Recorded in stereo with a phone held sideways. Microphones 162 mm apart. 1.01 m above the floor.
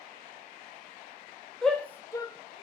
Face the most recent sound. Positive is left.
turn(degrees=40)  # may be behind; listen again after turning